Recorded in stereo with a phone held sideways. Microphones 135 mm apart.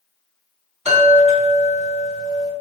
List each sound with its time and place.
0.8 s a chime: 55° right (ahead or behind), 1.9 m